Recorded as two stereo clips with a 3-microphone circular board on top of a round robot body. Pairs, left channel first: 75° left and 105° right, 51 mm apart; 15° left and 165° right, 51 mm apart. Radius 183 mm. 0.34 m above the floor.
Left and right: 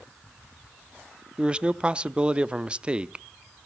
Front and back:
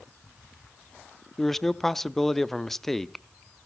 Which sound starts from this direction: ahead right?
A man speaking, at 1.4 s.